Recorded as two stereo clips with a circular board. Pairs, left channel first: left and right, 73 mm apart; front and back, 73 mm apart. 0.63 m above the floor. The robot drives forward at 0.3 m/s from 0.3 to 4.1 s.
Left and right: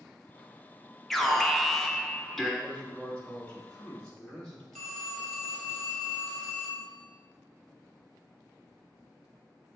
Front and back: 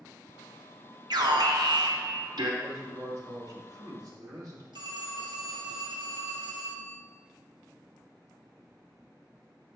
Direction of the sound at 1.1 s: Straight behind.